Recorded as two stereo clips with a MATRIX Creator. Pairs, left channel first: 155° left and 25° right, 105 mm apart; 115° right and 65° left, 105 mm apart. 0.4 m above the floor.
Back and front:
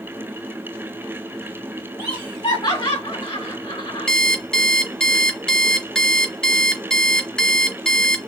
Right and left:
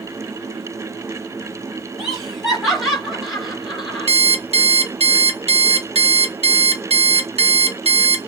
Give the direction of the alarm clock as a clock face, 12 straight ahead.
10 o'clock.